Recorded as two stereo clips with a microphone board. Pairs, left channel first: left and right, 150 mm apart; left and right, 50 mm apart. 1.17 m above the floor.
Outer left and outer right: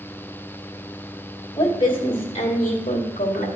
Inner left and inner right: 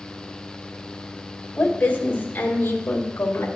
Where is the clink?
No clink in this recording.